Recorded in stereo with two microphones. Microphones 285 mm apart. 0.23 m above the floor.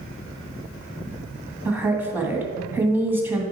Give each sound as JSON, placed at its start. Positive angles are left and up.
{"t": 1.6, "sound": "a woman speaking", "side_deg": -5, "distance_m": 1.6}